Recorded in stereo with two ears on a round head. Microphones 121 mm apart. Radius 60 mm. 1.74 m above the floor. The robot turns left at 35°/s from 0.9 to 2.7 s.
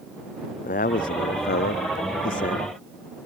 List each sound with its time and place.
0.6 s a man speaking: 115° left; by 3.3 s 55° left